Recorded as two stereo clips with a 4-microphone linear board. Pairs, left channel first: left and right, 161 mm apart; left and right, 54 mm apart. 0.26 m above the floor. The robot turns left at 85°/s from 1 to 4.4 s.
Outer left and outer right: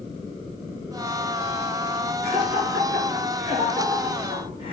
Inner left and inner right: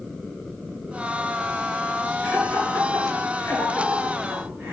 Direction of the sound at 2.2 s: 30° left (ahead or behind).